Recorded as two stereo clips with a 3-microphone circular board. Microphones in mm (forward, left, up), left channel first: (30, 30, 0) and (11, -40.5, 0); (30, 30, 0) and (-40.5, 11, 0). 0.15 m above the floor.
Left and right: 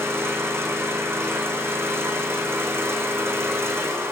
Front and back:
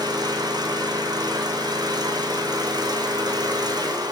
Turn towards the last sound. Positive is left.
turn(degrees=-160)